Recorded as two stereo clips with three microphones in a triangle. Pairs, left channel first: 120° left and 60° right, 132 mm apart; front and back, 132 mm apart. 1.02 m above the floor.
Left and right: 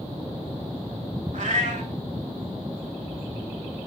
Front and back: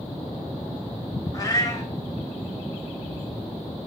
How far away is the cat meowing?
About 1.6 m.